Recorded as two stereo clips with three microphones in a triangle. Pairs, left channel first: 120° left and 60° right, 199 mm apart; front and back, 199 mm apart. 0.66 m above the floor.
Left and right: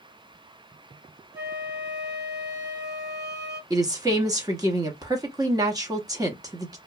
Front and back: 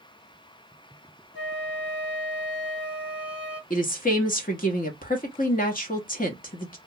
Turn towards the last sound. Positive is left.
turn(degrees=5)